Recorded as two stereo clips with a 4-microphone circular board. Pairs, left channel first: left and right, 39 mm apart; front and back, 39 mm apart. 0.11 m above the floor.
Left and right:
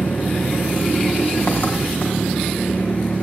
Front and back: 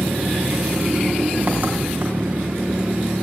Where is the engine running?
130° left, 4.5 m.